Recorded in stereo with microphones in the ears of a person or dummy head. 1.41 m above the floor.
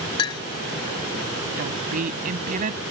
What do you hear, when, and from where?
0.2 s a clink: 25° left (ahead or behind)
1.6 s a woman speaking: 45° right (ahead or behind)